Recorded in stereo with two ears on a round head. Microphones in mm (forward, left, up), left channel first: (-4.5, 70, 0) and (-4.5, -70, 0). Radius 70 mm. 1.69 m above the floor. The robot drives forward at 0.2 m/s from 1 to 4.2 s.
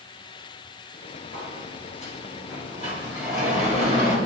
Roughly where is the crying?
No crying in this recording.